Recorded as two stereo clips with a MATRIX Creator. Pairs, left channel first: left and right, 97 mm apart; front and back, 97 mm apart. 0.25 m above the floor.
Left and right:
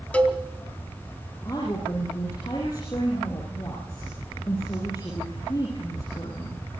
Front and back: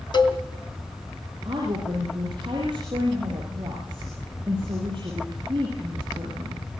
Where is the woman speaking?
145° left, 7.5 m.